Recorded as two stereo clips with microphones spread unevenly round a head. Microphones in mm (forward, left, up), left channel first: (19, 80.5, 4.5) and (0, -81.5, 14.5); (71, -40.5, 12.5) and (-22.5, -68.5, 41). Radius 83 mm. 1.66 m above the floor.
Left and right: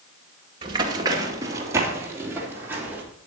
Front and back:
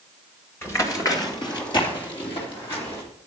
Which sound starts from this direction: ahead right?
Running footsteps, at 0.6 s.